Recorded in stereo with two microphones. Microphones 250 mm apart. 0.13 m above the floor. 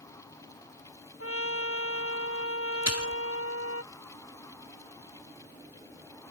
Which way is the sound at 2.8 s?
85° right.